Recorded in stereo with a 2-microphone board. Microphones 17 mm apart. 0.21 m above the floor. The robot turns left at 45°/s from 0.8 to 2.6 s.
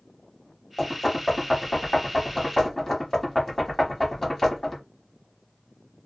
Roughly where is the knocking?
Centre.